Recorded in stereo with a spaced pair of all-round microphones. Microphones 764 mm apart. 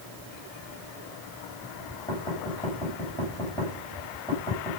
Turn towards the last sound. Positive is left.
turn(degrees=5)  # may be behind; listen again after turning